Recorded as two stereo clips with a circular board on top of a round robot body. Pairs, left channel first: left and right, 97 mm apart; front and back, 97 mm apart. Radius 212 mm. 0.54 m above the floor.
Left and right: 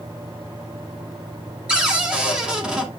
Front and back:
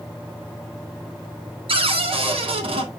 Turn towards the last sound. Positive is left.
turn(degrees=-170)